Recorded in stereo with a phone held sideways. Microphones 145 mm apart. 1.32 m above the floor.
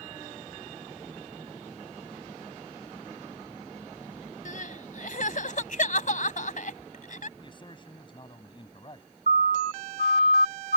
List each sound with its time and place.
4.5 s crying: 65° left (ahead or behind)
7.4 s a man speaking: 35° left (ahead or behind)
9.3 s a siren: 70° right (ahead or behind); by 10.8 s 90° right